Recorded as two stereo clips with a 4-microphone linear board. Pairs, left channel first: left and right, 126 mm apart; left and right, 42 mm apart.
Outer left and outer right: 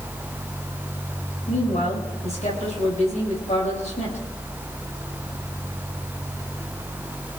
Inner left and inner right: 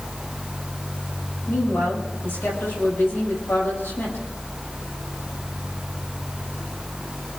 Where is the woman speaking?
65° left (ahead or behind), 9.5 m.